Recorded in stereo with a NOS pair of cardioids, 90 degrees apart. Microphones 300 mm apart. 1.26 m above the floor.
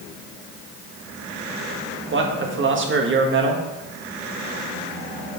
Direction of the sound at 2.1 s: 40° right.